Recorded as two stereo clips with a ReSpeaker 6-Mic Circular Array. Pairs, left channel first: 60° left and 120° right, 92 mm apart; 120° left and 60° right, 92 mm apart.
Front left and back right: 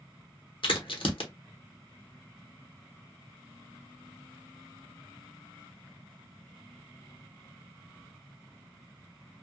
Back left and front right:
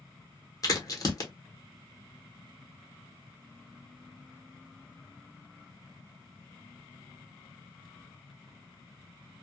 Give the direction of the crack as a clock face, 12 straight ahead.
10 o'clock.